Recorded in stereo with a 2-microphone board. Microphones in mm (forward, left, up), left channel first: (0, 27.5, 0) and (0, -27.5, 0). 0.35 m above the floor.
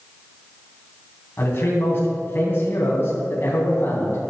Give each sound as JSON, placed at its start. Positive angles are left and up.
{"t": 1.4, "sound": "a man speaking", "side_deg": 40, "distance_m": 3.5}